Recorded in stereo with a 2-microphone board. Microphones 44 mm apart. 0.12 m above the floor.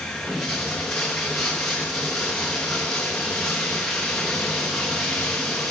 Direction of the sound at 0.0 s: 10° left (ahead or behind).